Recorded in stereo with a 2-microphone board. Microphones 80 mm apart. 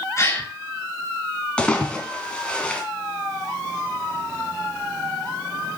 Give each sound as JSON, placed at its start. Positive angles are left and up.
{"t": 0.2, "sound": "a gasp", "side_deg": 35, "distance_m": 5.0}
{"t": 1.6, "sound": "a splash", "side_deg": 10, "distance_m": 2.5}